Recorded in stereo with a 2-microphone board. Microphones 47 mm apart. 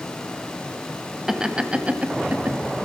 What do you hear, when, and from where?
1.3 s laughter: 15° right (ahead or behind), 1.0 m; by 2.6 s 40° right (ahead or behind), 1.3 m